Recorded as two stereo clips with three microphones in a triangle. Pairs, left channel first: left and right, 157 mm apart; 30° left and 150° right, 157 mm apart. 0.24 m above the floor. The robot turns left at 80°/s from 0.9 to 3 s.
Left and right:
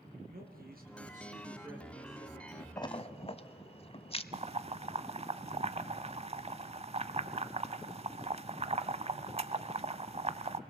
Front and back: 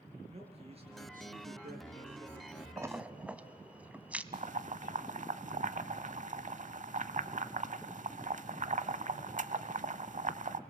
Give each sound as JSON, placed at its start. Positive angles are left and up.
{"t": 0.3, "sound": "a man speaking", "azimuth_deg": -100, "distance_m": 4.0}
{"t": 2.8, "sound": "a splash", "azimuth_deg": 150, "distance_m": 0.7}
{"t": 4.3, "sound": "boiling", "azimuth_deg": -130, "distance_m": 0.7}